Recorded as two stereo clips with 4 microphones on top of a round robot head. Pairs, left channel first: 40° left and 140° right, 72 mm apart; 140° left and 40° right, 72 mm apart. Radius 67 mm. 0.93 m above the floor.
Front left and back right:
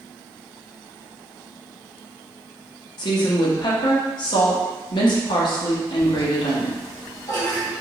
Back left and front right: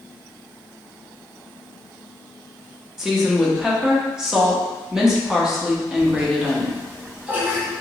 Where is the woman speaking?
40° left, 1.1 m.